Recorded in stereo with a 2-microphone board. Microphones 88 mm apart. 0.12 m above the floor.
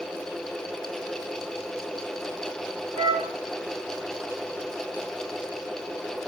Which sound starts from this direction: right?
A flute, at 3.0 s.